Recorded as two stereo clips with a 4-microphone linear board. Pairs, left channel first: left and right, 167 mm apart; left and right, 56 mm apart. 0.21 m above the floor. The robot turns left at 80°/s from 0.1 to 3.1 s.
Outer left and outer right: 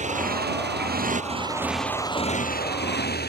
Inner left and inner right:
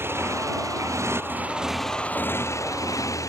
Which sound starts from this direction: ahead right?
A motorcycle, at 0.0 s.